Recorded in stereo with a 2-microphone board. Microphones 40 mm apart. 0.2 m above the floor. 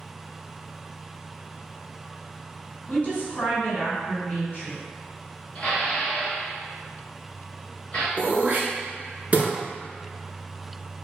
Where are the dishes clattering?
25° left (ahead or behind), 1.5 m.